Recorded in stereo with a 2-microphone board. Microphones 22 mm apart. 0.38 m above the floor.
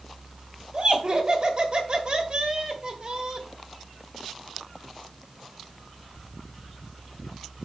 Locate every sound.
0.7 s laughter: 45° right (ahead or behind), 1.7 m